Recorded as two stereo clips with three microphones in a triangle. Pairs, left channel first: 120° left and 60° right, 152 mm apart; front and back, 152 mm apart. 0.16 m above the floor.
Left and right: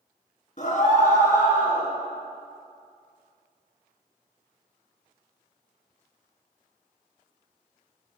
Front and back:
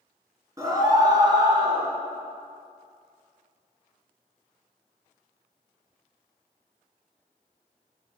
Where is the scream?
115° left, 2.5 m; by 1.9 s 125° left, 3 m.